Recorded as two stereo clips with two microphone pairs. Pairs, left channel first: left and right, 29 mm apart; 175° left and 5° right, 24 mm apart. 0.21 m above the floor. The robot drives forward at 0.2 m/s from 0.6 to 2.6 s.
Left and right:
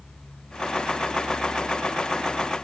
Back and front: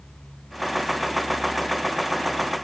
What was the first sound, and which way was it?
Only background noise.